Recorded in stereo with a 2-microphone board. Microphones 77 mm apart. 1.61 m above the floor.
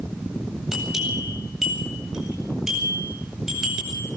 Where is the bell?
5° right (ahead or behind), 8.5 m.